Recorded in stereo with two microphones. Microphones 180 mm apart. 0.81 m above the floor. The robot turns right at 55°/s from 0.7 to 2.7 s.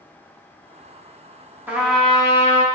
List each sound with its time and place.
1.7 s a trumpet: 10° right, 0.6 m; by 2.6 s 45° left, 0.6 m